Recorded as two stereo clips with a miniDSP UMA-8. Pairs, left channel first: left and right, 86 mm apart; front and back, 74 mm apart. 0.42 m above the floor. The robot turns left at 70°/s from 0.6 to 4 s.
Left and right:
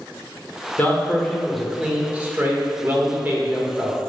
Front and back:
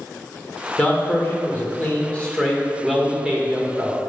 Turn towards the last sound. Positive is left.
turn(degrees=-170)